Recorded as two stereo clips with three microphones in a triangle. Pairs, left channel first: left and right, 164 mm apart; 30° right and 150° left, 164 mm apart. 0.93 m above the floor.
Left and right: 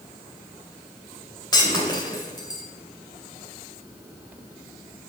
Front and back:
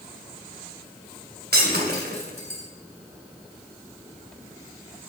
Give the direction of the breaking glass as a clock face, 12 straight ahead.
7 o'clock.